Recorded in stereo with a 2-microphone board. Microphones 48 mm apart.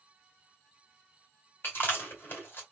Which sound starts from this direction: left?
Chewing, at 1.6 s.